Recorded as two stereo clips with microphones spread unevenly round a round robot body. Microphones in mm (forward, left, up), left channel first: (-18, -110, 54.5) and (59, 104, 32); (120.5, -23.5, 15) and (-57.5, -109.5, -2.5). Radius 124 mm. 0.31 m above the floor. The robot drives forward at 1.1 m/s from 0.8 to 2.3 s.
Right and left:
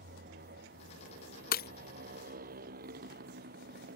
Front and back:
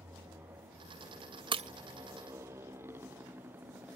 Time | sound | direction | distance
0.0 | a motorcycle | 125° left | ?
1.5 | breaking glass | 120° right | ?